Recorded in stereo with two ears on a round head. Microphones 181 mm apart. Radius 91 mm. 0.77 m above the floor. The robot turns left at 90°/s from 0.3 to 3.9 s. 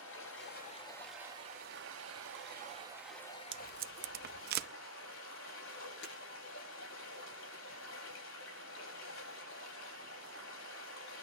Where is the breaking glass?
60° left (ahead or behind), 9 m.